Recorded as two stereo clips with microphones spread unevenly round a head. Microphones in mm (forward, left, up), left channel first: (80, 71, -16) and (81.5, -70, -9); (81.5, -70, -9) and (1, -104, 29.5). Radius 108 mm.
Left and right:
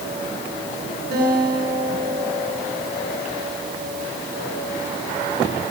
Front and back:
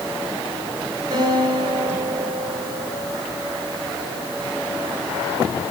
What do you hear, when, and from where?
1.1 s a guitar: 125° right, 9.5 m